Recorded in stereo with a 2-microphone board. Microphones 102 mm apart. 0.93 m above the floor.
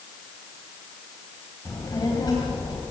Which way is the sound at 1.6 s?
25° left (ahead or behind).